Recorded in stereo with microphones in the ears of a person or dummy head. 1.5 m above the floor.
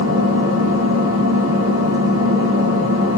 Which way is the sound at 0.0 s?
80° right.